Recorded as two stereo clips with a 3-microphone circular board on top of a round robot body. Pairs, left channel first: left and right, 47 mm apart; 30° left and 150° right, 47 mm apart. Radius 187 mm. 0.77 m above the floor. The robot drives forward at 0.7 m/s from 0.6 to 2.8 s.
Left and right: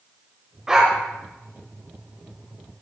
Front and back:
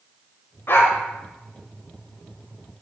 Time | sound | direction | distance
0.7 | a dog barking | 10° right | 0.9 m